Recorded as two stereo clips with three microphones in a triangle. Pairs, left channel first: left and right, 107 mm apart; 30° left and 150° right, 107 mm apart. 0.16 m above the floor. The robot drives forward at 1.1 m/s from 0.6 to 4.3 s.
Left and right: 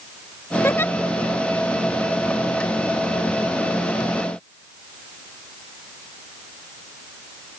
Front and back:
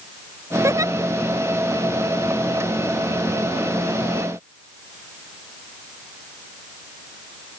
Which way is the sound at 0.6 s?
155° left.